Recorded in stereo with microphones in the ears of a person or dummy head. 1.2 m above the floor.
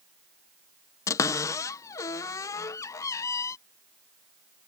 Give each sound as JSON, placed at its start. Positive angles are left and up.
{"t": 1.1, "sound": "a cupboard door", "side_deg": 20}